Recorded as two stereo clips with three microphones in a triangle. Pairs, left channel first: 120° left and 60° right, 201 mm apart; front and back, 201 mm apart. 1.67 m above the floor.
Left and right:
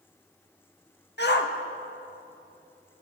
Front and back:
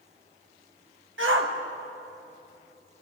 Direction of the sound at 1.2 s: 155° left.